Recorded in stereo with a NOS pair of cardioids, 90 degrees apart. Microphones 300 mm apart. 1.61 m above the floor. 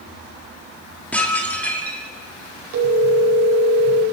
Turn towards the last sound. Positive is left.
turn(degrees=-70)